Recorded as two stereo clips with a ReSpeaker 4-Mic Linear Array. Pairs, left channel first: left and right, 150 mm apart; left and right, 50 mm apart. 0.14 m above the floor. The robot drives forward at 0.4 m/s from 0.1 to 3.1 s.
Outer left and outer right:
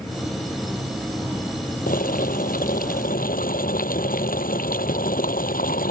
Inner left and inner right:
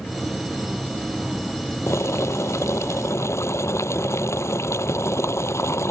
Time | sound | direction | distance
1.9 | boiling | 70° left (ahead or behind) | ?